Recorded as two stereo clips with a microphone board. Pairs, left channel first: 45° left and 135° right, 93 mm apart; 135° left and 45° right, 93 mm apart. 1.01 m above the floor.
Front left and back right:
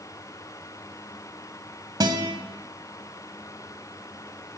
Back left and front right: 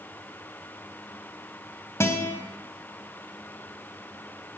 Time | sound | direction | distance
2.0 | a guitar | 170° right | 1.5 m